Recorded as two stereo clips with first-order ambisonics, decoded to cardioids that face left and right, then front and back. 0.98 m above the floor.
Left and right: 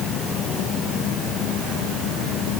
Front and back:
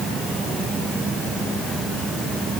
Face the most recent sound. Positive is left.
No sound to turn to.